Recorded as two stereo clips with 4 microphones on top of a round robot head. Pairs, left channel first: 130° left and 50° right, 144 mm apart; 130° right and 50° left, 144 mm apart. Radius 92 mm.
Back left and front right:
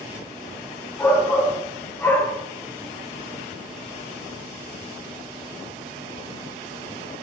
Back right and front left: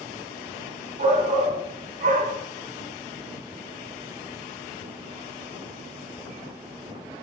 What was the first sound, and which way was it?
A shout, 60° left.